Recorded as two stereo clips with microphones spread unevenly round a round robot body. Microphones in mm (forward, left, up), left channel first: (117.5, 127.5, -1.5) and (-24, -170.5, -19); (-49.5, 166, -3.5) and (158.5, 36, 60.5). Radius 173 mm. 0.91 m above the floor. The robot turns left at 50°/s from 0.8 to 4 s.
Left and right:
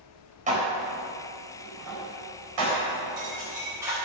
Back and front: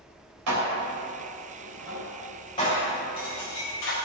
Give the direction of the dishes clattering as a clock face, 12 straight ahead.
2 o'clock.